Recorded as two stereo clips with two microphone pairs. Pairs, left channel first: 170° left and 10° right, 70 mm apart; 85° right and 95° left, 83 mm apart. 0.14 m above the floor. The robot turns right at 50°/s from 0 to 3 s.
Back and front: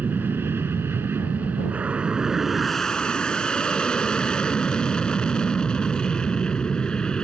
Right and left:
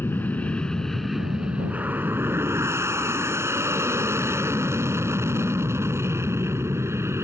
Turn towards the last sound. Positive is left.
turn(degrees=100)